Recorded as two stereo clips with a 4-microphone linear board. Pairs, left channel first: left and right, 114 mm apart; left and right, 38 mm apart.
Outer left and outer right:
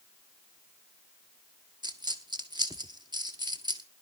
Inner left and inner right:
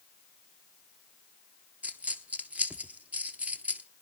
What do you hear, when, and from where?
1.8 s a dropped coin: 40° right (ahead or behind), 1.0 m